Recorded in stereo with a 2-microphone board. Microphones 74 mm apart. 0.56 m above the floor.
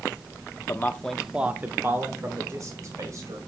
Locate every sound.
0.7 s a man speaking: 30° left (ahead or behind), 0.7 m; by 3.4 s 45° right (ahead or behind), 2.5 m